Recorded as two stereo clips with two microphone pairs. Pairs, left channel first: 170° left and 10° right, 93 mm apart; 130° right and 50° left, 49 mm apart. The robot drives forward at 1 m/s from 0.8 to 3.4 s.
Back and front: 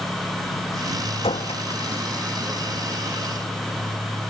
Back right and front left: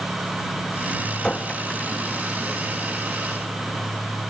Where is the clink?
155° left; by 2.5 s 160° left.